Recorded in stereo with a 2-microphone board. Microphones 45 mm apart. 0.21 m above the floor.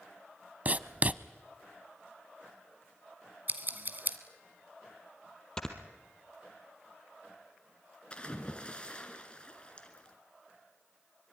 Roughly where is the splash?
Left.